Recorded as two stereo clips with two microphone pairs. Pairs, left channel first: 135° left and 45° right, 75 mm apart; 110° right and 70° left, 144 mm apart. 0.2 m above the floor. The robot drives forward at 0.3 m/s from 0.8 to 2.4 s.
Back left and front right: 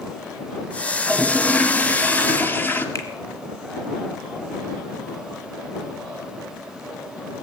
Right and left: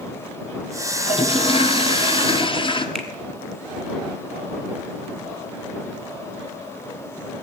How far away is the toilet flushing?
About 1.0 m.